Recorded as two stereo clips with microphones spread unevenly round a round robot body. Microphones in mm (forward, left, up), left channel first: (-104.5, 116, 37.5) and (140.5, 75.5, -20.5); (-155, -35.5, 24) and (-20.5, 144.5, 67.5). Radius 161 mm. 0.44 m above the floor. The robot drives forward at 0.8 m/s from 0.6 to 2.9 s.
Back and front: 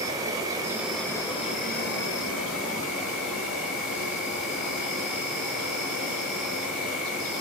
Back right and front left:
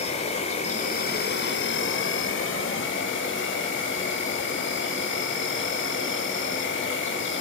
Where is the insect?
75° right, 1.3 m; by 7.4 s 145° right, 2 m.